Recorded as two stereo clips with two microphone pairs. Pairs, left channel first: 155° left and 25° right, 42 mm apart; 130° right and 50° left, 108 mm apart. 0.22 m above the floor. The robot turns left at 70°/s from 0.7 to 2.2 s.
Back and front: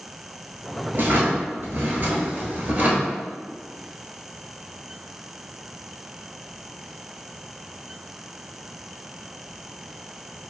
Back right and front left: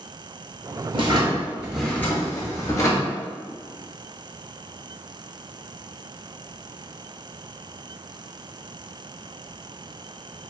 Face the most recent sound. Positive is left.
turn(degrees=-70)